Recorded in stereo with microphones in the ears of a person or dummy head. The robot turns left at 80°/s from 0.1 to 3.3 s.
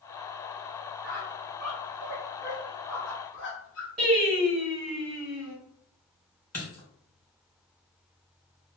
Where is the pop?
No pop in this recording.